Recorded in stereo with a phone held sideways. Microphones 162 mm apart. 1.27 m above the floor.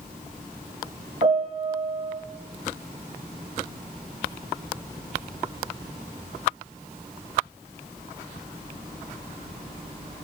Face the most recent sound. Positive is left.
turn(degrees=-40)  # may be behind; listen again after turning